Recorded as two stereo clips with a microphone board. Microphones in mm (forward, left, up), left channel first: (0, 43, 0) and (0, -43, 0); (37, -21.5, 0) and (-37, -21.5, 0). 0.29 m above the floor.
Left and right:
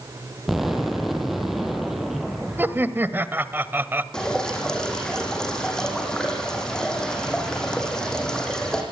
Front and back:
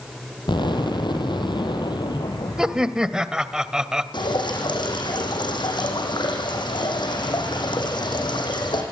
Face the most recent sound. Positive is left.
turn(degrees=10)